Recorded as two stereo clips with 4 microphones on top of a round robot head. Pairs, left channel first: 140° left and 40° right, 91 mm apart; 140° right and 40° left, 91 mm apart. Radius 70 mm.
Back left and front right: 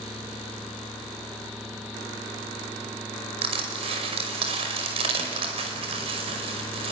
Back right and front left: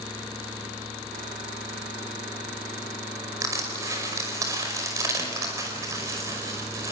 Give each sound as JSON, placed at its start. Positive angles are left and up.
{"t": 3.4, "sound": "crushing", "azimuth_deg": -15, "distance_m": 5.5}